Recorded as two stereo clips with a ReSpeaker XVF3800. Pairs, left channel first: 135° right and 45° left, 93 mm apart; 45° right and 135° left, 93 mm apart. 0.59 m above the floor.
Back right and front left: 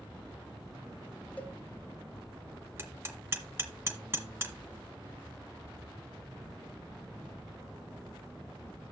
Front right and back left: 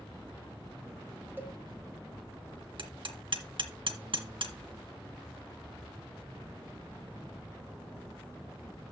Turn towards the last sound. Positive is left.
turn(degrees=105)